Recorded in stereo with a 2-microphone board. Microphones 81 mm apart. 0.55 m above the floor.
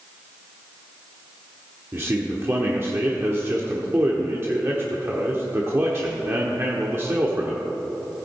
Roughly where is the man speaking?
Right.